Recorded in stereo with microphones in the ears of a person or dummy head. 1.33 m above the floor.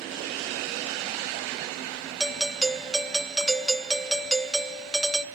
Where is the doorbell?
Centre (ahead or behind), 0.5 m.